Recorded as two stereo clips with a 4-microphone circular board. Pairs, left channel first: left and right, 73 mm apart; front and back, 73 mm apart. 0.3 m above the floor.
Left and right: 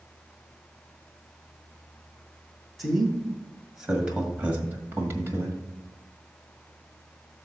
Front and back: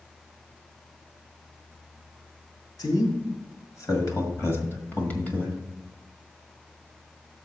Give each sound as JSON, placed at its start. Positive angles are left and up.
{"t": 2.8, "sound": "a man speaking", "azimuth_deg": 0, "distance_m": 2.5}